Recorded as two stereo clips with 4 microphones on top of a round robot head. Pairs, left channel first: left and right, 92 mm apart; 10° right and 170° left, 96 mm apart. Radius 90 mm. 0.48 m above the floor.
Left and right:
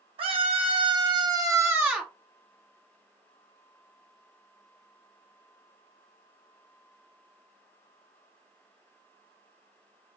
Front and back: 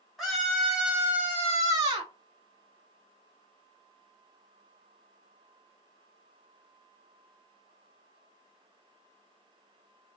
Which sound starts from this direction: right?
A scream, at 0.2 s.